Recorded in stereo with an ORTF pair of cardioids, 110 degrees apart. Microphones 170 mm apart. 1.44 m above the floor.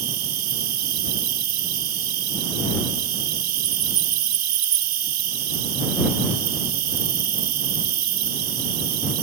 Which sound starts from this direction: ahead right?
An insect, at 0.0 s.